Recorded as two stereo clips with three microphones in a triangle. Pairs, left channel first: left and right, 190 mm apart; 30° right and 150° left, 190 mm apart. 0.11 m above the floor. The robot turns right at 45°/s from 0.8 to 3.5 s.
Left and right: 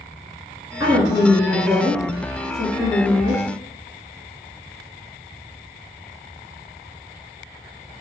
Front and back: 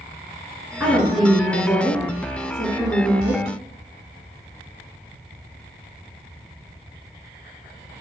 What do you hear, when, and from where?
0.8 s a woman speaking: 130° right, 1.6 m; by 3.4 s 15° right, 1.6 m